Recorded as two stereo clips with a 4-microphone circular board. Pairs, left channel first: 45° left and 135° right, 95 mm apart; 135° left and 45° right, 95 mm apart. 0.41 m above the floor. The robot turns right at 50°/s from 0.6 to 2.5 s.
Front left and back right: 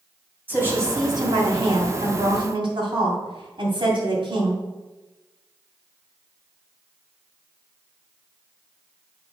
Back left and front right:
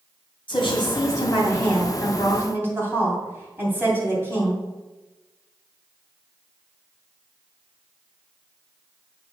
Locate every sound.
0.5 s a woman speaking: 155° left, 2.5 m; by 4.6 s 110° right, 2.5 m